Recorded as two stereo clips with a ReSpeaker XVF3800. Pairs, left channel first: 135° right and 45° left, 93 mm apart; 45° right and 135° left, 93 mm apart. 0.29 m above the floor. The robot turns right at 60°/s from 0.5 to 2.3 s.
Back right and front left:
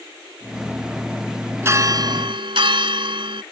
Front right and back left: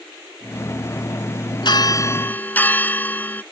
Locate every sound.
1.6 s a bell: 15° right; by 3.4 s 25° left